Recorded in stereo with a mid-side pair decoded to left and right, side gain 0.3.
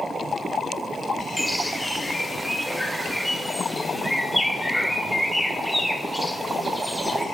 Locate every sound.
1.4 s a bird: straight ahead, 0.6 m